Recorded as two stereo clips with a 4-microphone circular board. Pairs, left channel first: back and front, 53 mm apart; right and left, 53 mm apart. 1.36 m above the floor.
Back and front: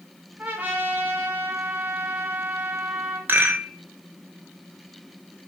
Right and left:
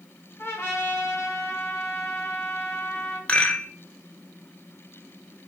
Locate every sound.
0.4 s a trumpet: 60° right, 2.5 m
3.3 s a rattle: 30° right, 1.5 m